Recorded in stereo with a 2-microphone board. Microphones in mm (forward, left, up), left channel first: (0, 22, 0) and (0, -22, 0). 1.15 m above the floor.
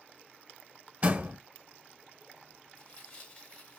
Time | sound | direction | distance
1.0 | a door slam | 35° right (ahead or behind) | 0.6 m
2.8 | tearing paper | 25° left (ahead or behind) | 1.9 m